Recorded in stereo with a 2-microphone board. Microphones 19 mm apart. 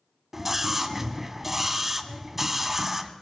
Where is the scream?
10° right (ahead or behind), 2 m.